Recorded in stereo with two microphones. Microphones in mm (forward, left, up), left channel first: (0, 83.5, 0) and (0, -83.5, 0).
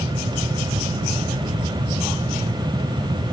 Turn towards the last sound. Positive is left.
No sound to turn to.